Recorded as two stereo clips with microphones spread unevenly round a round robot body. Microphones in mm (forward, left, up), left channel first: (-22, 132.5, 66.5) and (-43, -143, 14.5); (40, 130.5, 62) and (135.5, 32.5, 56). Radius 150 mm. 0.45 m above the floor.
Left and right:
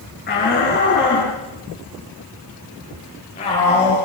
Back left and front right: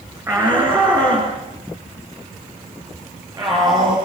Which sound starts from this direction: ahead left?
A shout, at 0.3 s.